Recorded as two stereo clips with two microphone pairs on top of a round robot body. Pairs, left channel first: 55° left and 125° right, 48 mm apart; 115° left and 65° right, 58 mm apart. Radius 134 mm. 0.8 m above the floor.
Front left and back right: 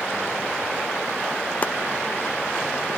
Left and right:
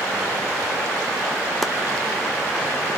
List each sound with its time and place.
1.6 s chopping: 35° left, 0.7 m